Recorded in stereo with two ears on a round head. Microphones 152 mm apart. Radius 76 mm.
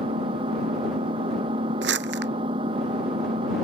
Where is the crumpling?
75° right (ahead or behind).